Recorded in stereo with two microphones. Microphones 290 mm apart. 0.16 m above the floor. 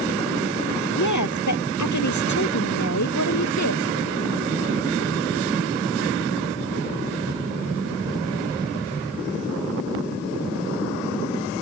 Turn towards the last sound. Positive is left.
turn(degrees=65)  # may be behind; listen again after turning